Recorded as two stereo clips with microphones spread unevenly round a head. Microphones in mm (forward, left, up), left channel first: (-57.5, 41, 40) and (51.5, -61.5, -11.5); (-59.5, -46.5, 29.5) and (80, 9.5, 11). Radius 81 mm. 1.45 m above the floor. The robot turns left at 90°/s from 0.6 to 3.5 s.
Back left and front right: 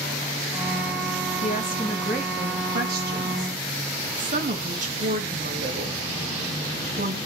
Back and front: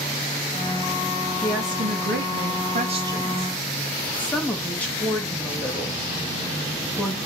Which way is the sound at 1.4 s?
110° left.